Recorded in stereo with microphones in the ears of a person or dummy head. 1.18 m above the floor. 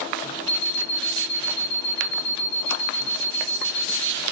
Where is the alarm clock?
50° left (ahead or behind), 0.9 m.